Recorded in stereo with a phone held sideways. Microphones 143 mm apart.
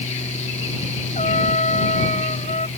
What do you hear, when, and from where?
0.0 s a fan: 55° left (ahead or behind)
1.1 s a trumpet: 55° left (ahead or behind)